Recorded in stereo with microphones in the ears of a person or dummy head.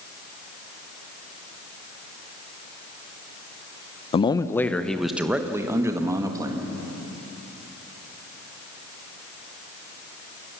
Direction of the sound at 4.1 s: 25° left (ahead or behind).